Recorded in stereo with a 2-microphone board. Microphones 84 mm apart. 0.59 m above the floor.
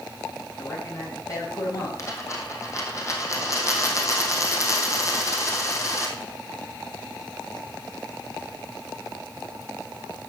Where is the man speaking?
40° left (ahead or behind), 3.5 m.